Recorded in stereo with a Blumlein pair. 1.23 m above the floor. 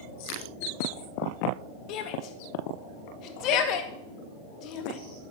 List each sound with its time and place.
1.9 s a shout: 40° left, 2 m